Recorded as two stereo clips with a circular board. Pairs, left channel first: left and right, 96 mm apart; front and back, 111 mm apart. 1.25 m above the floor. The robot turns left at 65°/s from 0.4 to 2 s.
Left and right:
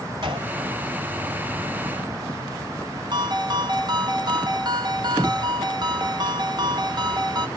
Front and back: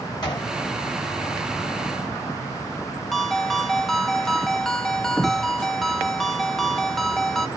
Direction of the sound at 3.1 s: 85° right.